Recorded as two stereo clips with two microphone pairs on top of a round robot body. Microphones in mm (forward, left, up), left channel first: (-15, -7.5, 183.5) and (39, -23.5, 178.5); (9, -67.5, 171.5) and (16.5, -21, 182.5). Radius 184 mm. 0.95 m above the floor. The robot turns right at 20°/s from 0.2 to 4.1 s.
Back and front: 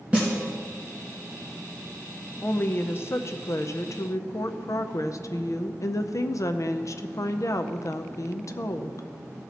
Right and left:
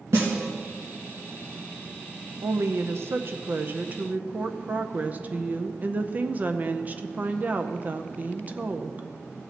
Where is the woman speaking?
110° left, 0.6 m; by 9.1 s 140° left, 0.6 m.